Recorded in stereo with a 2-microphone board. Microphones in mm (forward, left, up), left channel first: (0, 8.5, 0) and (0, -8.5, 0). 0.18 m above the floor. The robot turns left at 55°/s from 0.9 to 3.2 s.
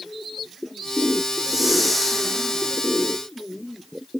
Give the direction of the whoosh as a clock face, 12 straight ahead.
5 o'clock.